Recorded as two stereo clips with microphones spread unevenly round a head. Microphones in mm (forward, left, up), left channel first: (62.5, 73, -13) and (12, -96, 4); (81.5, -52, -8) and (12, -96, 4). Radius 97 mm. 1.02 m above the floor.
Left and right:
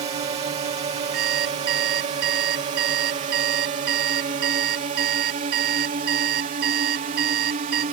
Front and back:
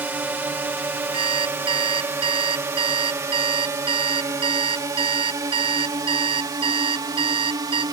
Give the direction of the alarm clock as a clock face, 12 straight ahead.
5 o'clock.